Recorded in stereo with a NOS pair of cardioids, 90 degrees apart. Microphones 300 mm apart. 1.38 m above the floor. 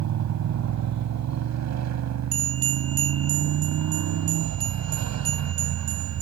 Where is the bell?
50° right.